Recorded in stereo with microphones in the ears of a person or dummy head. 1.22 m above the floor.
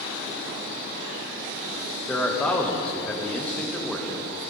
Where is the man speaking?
10° left (ahead or behind), 1.4 m.